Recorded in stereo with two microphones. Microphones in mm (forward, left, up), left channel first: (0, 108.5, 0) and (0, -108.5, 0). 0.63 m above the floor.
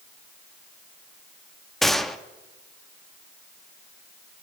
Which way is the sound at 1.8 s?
Centre (ahead or behind).